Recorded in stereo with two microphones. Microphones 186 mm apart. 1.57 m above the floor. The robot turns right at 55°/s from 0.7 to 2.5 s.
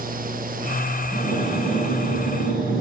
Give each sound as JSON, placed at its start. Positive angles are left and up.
{"t": 1.1, "sound": "breathing", "azimuth_deg": 40, "distance_m": 7.5}